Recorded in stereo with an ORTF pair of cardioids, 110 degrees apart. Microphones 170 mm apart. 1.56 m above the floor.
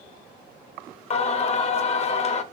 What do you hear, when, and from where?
1.1 s singing: 40° left, 0.7 m